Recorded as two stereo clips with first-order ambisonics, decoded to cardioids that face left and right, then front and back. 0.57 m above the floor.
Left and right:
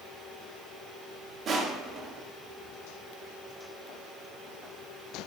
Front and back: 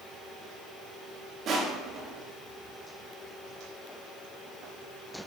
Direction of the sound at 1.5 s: 140° right.